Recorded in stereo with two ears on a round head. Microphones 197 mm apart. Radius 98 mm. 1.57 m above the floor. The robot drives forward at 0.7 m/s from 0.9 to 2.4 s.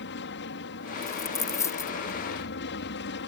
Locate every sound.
0.0 s an aircraft: 50° left (ahead or behind)
1.0 s a dropped coin: 15° left (ahead or behind)